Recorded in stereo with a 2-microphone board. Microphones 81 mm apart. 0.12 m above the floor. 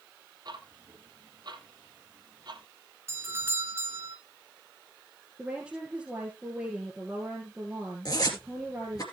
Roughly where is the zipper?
Left.